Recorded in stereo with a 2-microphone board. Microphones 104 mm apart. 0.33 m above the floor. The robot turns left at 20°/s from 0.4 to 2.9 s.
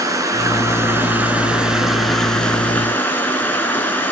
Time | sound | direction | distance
0.0 | running water | 145° right | 1.3 m